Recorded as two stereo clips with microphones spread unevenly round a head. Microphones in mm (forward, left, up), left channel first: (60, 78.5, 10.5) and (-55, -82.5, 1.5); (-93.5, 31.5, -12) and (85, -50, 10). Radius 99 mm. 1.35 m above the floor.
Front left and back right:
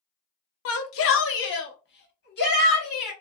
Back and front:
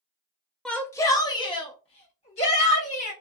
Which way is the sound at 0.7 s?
70° left.